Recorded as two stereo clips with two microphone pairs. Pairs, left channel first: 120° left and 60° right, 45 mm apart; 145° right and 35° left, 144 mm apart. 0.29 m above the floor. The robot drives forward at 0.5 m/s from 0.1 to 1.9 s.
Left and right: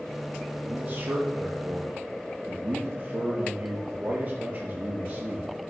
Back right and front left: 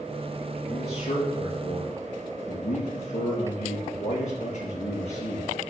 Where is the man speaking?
100° right, 4.5 m; by 5.5 s 110° right, 4.5 m.